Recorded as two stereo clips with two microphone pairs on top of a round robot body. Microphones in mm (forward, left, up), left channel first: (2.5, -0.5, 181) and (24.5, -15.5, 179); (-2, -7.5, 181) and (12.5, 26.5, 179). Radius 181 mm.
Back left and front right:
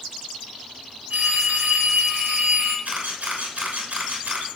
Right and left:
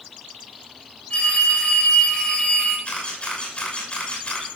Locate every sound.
1.1 s a phone ringing: 60° right, 6.5 m
2.9 s a camera shutter: 55° right, 6 m